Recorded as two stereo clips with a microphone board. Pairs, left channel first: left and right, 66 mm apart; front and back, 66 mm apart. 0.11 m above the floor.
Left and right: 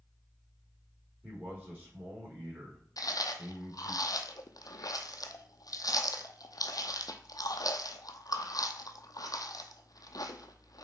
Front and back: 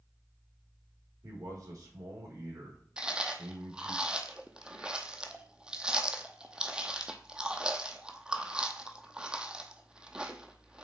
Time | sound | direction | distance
1.2 | a man speaking | 155° right | 4.5 m
3.0 | chewing | 105° left | 0.8 m